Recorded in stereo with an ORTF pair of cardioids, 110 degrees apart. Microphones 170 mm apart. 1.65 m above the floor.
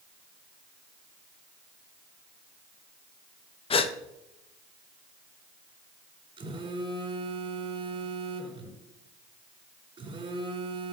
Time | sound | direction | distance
3.7 | a gasp | 35° left | 1.2 m
6.4 | a phone buzzing | 35° right | 4.5 m